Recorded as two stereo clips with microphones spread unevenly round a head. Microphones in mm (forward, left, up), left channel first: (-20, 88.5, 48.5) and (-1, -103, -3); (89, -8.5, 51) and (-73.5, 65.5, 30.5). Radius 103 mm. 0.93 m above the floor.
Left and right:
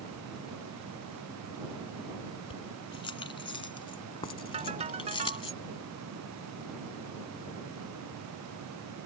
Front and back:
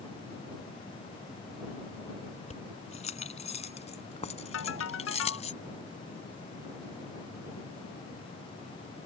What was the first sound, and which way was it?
Keys jangling, 30° left.